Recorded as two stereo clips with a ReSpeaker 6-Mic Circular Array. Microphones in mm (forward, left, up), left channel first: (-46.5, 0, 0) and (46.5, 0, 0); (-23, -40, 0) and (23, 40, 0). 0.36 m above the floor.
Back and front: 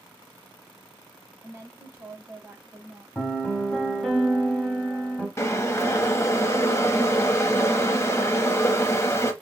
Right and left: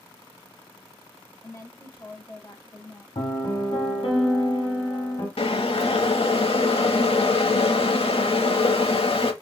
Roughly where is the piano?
Right.